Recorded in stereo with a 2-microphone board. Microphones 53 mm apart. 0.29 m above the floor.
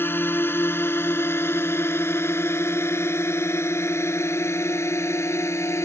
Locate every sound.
0.0 s a drone: 45° left (ahead or behind); by 5.9 s 60° left (ahead or behind)